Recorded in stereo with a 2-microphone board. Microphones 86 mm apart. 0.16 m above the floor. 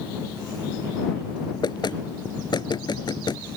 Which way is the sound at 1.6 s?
60° left (ahead or behind).